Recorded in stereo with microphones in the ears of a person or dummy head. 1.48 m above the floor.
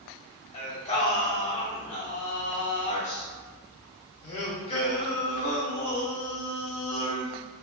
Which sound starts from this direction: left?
Singing, at 0.5 s.